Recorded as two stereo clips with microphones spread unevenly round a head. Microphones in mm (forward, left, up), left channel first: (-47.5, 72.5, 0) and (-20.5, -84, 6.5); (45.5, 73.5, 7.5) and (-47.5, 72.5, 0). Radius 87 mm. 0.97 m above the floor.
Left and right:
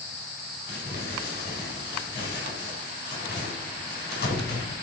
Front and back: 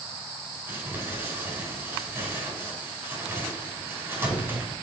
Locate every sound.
0.7 s crumpling: 115° left, 4.5 m